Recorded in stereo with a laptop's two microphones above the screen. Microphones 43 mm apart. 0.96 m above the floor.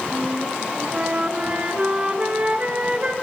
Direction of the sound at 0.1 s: 30° right (ahead or behind).